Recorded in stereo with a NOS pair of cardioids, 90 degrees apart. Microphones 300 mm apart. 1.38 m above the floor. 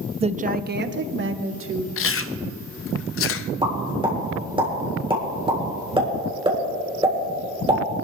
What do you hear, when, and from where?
0.2 s a woman speaking: 20° right, 0.6 m; by 1.9 s 45° right, 1.7 m
2.0 s chewing: 45° left, 0.6 m
3.6 s a pop: 20° right, 3.5 m